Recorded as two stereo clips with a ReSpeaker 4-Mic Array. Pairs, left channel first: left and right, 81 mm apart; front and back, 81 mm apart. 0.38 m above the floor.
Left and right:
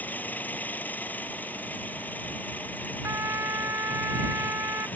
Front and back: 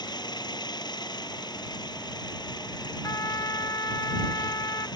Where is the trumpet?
40° right.